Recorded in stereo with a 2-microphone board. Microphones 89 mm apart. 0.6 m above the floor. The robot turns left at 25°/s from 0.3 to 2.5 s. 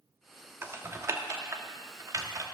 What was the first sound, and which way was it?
Typing on a keyboard, 25° right (ahead or behind).